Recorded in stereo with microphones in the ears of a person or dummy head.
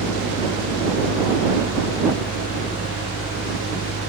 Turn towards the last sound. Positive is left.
turn(degrees=60)  # may be behind; listen again after turning